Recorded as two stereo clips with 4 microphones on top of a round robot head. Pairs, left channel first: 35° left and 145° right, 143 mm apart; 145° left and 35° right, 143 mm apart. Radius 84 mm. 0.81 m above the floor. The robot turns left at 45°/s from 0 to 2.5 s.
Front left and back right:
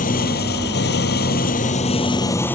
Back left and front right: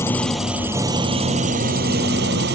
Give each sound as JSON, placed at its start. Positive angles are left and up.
{"t": 0.0, "sound": "an engine running", "azimuth_deg": 70}